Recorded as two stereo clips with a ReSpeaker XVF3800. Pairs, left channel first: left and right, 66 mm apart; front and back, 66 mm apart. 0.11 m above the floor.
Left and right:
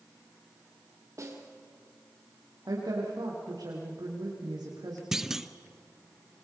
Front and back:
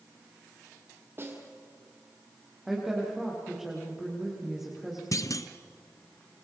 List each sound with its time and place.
1.2 s a snare drum: 130° right, 3.5 m
2.7 s a woman speaking: 100° right, 6 m
5.1 s a clunk: 10° right, 1.0 m